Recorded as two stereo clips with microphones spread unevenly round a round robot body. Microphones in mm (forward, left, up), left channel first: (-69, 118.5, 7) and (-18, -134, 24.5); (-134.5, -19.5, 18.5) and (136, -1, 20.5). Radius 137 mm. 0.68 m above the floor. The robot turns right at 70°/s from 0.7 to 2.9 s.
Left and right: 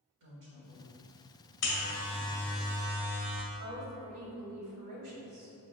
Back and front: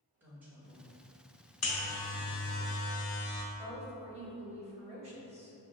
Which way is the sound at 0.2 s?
80° right.